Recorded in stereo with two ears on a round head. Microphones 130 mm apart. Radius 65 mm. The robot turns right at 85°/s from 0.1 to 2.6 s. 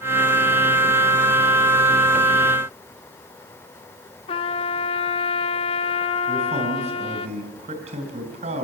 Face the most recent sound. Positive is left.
turn(degrees=-45)  # may be behind; listen again after turning